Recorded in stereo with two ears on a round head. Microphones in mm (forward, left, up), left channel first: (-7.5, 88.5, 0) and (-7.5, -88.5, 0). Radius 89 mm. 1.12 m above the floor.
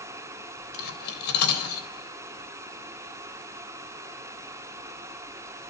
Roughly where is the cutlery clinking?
Left.